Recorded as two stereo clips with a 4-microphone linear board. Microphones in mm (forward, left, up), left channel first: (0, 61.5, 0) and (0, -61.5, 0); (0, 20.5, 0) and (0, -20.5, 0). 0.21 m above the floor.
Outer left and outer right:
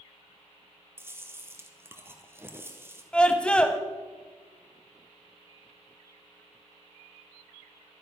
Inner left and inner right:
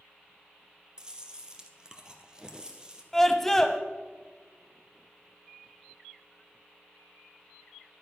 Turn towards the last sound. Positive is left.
turn(degrees=10)  # may be behind; listen again after turning